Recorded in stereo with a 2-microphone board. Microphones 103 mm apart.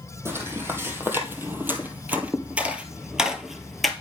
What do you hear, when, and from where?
0.2 s footsteps: 25° right (ahead or behind), 2.5 m; by 3.9 s centre (ahead or behind), 1.4 m